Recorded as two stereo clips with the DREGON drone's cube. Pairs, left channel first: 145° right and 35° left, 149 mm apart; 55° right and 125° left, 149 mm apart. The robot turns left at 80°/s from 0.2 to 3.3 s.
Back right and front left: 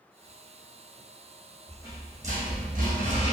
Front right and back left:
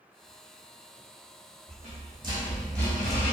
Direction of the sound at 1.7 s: 110° left.